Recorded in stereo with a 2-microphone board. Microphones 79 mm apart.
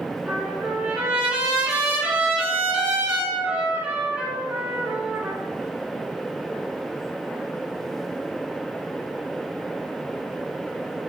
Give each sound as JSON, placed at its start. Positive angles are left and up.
{"t": 0.3, "sound": "a trumpet", "side_deg": -20, "distance_m": 3.5}